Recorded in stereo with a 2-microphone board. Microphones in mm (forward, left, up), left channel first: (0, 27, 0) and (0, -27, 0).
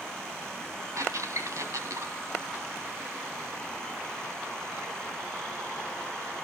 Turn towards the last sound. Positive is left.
turn(degrees=-70)  # may be behind; listen again after turning